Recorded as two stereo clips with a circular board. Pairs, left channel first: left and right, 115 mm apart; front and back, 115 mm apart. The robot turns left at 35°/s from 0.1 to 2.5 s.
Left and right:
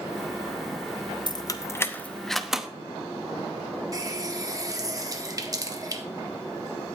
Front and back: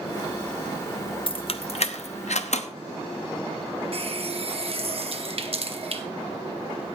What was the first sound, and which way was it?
Keys jangling, 40° left.